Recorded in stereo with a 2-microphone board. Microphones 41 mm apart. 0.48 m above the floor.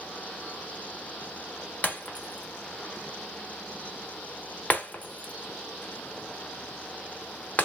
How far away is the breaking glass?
About 0.9 m.